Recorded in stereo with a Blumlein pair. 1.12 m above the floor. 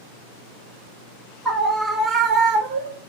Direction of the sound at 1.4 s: 5° left.